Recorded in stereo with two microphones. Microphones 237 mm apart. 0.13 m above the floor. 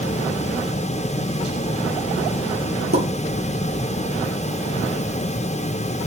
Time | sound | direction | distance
2.9 | a pop | 65° right (ahead or behind) | 1.4 m